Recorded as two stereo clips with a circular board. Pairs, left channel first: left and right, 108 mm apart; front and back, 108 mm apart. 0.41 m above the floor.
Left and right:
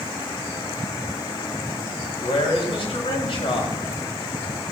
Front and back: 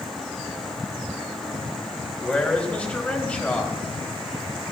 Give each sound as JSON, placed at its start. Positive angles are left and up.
{"t": 2.2, "sound": "a man speaking", "azimuth_deg": 75, "distance_m": 2.5}